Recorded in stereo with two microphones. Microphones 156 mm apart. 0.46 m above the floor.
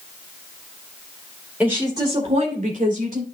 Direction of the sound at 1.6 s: 10° right (ahead or behind).